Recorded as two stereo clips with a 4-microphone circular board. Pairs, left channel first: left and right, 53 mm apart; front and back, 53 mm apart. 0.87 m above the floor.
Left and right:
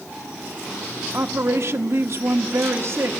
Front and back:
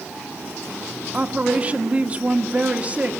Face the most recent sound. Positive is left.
turn(degrees=-120)